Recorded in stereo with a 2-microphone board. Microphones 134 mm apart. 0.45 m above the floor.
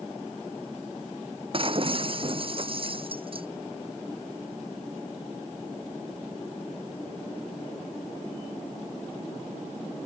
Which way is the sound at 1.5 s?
40° right (ahead or behind).